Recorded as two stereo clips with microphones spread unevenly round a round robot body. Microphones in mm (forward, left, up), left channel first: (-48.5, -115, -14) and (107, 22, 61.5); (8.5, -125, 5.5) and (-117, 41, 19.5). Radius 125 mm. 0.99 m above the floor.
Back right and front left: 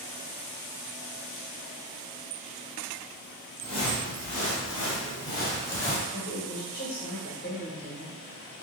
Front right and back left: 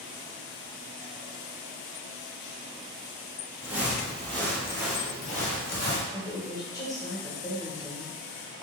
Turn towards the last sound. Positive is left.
turn(degrees=-125)